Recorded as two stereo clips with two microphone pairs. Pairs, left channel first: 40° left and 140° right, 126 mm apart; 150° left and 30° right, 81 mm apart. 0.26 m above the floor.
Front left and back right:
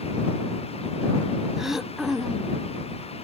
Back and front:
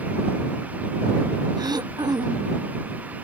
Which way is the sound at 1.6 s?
55° right.